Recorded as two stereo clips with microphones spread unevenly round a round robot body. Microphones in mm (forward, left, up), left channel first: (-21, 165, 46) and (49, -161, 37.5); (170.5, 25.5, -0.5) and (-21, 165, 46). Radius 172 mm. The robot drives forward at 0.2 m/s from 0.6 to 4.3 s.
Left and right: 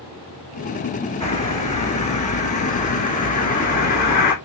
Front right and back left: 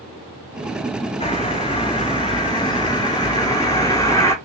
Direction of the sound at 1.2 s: 30° left.